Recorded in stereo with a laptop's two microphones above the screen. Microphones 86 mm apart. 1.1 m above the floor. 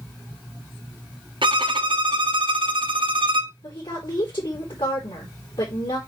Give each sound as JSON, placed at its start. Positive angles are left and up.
{"t": 1.4, "sound": "a violin", "side_deg": -70, "distance_m": 0.9}
{"t": 3.6, "sound": "a woman speaking", "side_deg": 65, "distance_m": 4.0}